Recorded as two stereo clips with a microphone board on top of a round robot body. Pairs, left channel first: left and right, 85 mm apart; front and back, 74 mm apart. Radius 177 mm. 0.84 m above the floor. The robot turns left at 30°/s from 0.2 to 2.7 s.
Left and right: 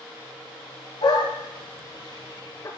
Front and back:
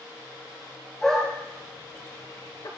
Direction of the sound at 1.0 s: 90° left.